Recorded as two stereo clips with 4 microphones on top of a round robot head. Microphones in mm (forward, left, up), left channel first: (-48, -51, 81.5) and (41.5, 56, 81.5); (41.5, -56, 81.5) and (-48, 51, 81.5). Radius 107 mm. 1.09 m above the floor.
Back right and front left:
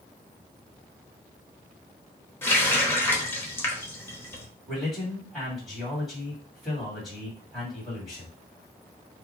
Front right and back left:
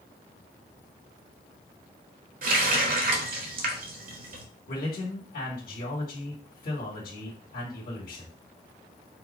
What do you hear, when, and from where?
2.4 s a running tap: 155° left, 1.0 m
4.7 s a man speaking: 40° right, 2 m